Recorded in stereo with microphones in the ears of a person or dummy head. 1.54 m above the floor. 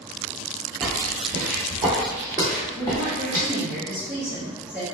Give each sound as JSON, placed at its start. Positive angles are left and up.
{"t": 0.8, "sound": "footsteps", "side_deg": -20, "distance_m": 1.6}
{"t": 2.8, "sound": "a woman speaking", "side_deg": 0, "distance_m": 0.8}